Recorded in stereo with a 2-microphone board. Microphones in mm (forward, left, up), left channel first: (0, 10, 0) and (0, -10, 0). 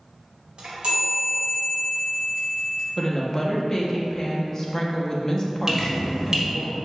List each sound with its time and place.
0.6 s a chime: 60° right (ahead or behind), 1.2 m
3.0 s a woman speaking: 25° left (ahead or behind), 0.6 m
5.7 s dripping: 25° right (ahead or behind), 0.8 m